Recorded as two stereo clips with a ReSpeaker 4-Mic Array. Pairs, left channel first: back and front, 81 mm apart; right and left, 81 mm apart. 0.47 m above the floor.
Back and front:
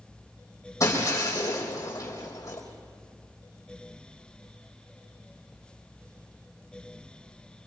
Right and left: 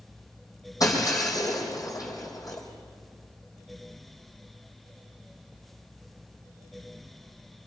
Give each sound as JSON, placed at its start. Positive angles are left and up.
{"t": 0.8, "sound": "breaking glass", "azimuth_deg": -130, "distance_m": 5.0}